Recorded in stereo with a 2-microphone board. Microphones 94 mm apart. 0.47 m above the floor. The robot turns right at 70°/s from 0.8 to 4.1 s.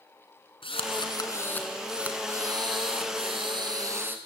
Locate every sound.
0.6 s a drill: 105° left, 3 m; by 4.2 s 20° right, 3 m